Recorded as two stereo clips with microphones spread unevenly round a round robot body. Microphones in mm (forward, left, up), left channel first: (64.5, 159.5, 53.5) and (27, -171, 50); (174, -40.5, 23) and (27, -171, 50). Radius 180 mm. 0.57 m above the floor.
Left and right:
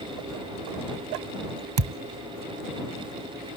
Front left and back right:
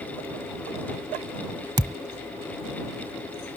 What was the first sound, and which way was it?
A thud, 70° right.